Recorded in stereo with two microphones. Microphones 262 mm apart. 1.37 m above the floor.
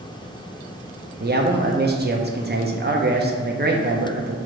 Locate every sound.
1.2 s a man speaking: 40° right (ahead or behind), 0.5 m